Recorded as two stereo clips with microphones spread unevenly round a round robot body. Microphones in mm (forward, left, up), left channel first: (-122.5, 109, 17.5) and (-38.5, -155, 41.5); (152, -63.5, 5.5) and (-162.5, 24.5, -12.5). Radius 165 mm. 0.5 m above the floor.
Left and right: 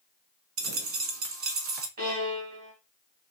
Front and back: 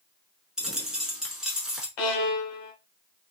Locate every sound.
0.6 s a dropped coin: 105° right, 0.7 m
2.0 s a violin: 5° right, 0.9 m